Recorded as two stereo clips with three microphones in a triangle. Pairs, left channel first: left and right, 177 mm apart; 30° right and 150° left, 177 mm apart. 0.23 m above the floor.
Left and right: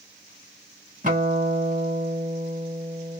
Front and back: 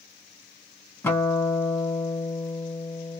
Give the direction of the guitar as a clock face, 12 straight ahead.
3 o'clock.